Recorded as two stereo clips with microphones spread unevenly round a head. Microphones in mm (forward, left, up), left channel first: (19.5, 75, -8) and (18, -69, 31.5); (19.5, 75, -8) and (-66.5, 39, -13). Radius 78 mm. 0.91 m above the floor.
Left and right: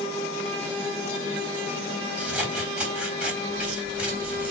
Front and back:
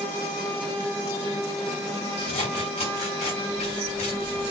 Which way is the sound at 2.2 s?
10° right.